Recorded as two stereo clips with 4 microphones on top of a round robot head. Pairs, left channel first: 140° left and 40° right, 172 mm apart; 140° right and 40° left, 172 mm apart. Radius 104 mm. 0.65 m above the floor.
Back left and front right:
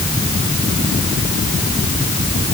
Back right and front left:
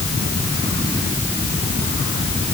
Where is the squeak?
No squeak in this recording.